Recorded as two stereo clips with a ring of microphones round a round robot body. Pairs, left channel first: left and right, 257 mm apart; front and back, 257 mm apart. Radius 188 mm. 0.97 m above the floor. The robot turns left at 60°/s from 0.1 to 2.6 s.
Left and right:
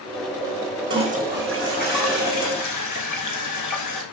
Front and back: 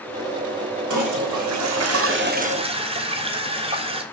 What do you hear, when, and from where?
0.9 s a toilet flushing: 145° right, 3.5 m; by 4.0 s 110° left, 3.5 m